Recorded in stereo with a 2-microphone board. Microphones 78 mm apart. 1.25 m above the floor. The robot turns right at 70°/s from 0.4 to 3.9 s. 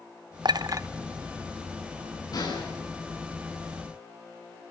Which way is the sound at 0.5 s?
65° right (ahead or behind).